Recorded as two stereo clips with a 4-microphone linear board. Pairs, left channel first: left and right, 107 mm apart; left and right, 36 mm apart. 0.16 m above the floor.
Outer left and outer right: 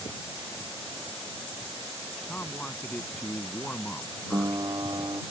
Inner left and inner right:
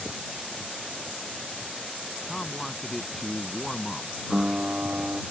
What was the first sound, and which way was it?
A man speaking, 15° left (ahead or behind).